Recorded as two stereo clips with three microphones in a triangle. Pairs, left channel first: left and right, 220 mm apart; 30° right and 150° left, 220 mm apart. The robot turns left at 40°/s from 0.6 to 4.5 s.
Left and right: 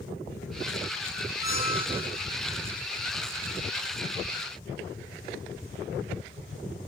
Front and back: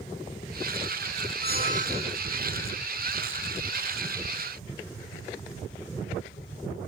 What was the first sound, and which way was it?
A squeak, 110° left.